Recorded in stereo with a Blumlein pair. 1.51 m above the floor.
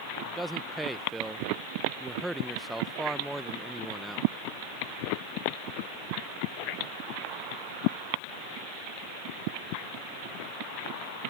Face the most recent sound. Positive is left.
turn(degrees=-5)